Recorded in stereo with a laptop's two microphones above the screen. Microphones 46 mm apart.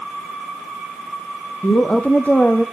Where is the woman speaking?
40° left (ahead or behind), 0.8 m; by 2.6 s 25° left (ahead or behind), 1.4 m.